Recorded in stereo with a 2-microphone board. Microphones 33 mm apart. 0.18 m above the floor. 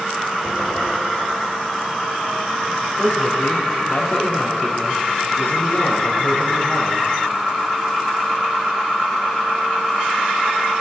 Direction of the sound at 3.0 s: 70° left (ahead or behind).